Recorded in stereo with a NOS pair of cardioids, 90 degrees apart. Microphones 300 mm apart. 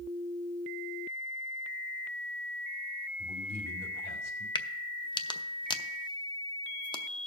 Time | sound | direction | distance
3.2 | a man speaking | 65° left | 3 m
4.5 | a crack | 15° left | 0.6 m